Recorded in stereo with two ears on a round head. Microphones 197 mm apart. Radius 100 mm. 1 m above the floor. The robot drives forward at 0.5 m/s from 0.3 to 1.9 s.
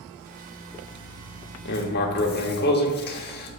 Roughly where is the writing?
Left.